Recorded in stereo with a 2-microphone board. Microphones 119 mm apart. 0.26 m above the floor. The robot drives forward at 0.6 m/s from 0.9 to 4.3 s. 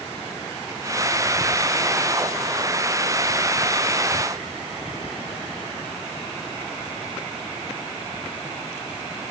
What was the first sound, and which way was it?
Only background noise.